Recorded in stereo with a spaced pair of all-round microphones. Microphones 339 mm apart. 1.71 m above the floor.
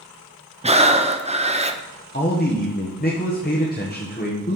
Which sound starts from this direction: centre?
Breathing, at 0.6 s.